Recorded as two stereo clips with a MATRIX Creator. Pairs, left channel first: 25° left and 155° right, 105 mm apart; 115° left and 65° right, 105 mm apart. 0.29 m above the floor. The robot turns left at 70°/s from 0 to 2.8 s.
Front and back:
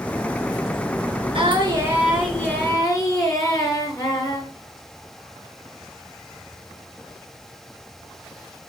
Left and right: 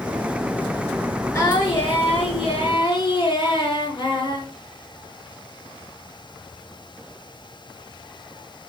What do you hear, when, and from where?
1.3 s singing: 175° left, 3.5 m; by 4.5 s 70° left, 3.5 m